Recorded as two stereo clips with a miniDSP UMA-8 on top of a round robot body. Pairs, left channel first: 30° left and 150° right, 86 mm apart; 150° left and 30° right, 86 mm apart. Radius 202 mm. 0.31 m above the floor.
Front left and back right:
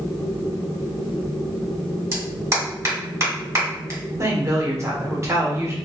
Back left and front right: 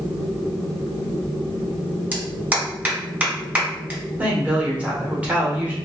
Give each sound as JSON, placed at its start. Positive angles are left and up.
{"t": 2.1, "sound": "a clap", "azimuth_deg": -100, "distance_m": 2.0}
{"t": 4.2, "sound": "a woman speaking", "azimuth_deg": -100, "distance_m": 1.7}